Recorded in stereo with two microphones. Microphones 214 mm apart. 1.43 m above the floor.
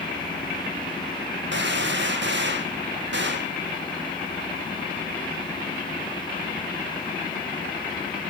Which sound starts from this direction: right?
A gunshot, at 1.5 s.